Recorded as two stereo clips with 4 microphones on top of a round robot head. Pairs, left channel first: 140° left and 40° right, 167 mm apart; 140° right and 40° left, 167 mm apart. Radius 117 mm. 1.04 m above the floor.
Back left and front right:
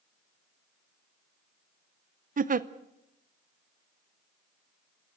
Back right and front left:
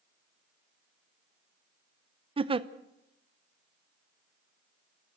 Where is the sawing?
I don't hear sawing.